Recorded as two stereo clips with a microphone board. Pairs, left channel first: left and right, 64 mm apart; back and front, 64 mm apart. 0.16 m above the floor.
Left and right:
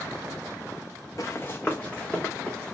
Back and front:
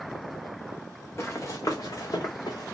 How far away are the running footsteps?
About 0.6 m.